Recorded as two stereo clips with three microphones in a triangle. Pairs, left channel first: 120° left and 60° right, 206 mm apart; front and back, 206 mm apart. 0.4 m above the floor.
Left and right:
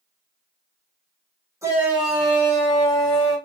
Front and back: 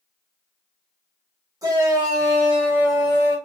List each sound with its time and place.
1.6 s a shout: 125° right, 1.4 m; by 3.4 s 100° left, 1.4 m